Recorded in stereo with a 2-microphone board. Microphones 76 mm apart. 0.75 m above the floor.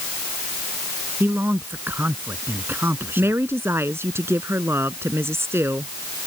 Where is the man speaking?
25° right (ahead or behind).